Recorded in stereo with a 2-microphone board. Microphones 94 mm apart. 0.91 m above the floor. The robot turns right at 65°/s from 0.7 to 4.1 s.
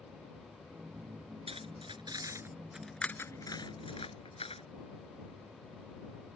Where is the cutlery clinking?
90° right; by 4.6 s 85° left.